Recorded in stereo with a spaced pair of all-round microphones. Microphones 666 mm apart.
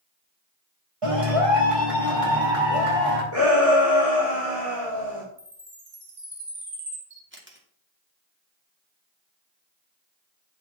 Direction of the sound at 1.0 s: 50° right (ahead or behind).